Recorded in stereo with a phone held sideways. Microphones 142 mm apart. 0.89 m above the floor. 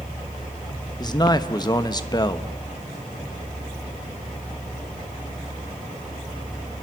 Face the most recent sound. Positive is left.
turn(degrees=30)  # may be behind; listen again after turning